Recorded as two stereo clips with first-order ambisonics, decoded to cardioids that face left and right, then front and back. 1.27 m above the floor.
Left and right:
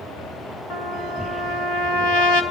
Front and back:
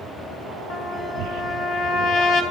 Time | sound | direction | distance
0.7 | a trumpet | 55° left | 2.5 m